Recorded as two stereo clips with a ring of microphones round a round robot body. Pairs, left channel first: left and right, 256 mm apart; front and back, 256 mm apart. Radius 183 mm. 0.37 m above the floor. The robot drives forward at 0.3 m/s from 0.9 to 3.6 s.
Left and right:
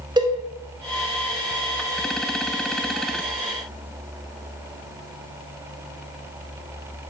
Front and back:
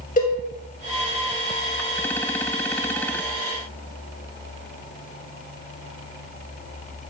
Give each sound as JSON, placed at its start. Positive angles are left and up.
{"t": 0.2, "sound": "a cowbell", "azimuth_deg": -25, "distance_m": 0.6}